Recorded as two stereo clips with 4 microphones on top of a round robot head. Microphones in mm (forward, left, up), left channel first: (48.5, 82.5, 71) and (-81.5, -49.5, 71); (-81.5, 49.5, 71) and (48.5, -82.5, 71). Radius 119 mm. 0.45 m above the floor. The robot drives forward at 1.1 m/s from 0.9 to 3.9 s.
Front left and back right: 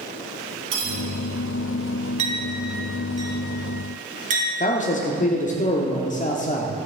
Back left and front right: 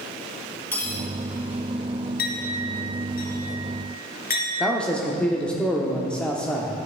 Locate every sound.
0.7 s cutlery clinking: 145° right, 3 m; by 1.0 s 150° right, 3.5 m
2.2 s a clink: 170° left, 2 m; by 4.5 s 175° left, 4 m
4.6 s a man speaking: 50° left, 0.9 m